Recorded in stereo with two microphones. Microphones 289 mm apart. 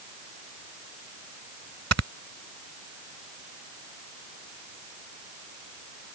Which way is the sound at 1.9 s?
60° right (ahead or behind).